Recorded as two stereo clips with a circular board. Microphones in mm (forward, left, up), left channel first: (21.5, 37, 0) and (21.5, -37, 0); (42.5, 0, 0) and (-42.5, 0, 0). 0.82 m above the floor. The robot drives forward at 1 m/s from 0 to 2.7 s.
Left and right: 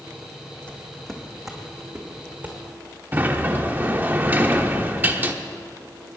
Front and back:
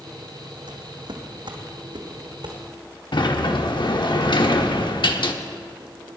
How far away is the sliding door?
About 0.9 m.